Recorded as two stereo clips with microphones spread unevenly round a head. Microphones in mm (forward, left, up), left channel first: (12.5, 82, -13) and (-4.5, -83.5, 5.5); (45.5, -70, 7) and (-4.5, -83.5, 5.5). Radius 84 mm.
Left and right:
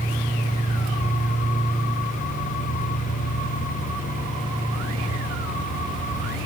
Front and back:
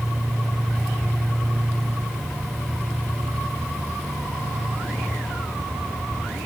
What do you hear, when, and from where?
Only background noise.